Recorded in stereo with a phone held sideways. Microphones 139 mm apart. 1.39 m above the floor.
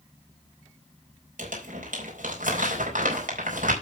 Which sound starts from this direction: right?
Crumpling, at 1.4 s.